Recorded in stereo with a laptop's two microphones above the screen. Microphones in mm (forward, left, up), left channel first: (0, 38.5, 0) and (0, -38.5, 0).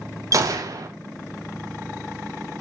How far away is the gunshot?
About 0.5 m.